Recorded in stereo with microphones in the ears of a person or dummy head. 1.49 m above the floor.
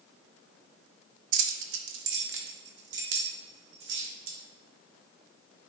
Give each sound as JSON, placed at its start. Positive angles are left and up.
{"t": 1.3, "sound": "keys jangling", "side_deg": -70, "distance_m": 0.8}